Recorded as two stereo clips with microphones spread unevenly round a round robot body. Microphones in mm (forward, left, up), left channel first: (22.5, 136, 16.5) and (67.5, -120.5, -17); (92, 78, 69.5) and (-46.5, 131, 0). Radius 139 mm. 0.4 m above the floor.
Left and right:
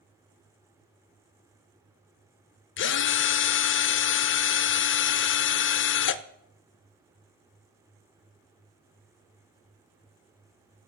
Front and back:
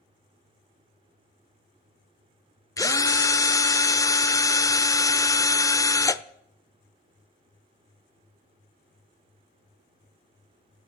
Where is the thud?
No thud in this recording.